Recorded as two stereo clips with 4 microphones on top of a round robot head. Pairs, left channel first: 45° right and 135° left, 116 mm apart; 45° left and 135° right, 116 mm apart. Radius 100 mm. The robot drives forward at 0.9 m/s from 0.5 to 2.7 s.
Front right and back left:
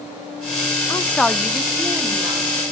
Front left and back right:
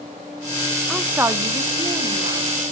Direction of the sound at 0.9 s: 45° right.